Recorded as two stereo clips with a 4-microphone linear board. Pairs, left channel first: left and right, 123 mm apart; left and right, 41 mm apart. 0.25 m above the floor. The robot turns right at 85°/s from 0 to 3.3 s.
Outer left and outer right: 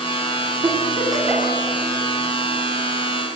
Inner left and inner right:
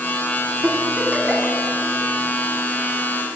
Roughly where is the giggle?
Right.